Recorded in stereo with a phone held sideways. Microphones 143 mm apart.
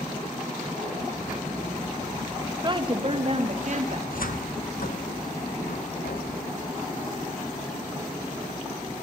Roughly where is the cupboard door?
Left.